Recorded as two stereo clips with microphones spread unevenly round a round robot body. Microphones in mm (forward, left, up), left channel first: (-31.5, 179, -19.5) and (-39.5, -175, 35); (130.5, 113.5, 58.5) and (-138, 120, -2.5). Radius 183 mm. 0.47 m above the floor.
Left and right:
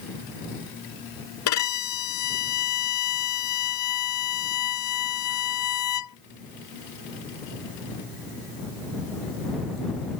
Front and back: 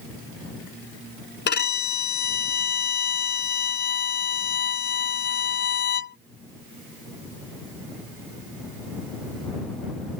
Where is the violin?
45° left.